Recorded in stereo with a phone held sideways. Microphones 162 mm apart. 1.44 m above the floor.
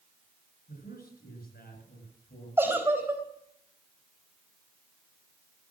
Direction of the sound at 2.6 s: 15° right (ahead or behind).